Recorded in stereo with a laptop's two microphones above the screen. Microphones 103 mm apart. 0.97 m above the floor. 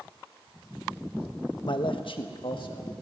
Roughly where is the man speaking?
Left.